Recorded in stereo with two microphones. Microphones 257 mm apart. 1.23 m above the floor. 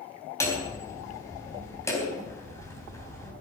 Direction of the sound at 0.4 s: 10° left (ahead or behind).